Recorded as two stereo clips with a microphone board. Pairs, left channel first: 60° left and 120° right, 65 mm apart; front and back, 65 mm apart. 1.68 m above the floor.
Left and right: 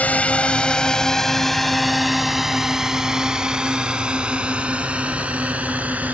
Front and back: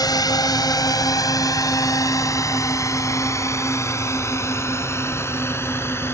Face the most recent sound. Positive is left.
turn(degrees=-50)